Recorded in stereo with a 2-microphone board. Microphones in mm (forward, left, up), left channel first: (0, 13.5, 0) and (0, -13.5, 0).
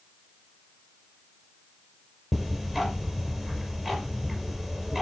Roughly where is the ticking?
Centre.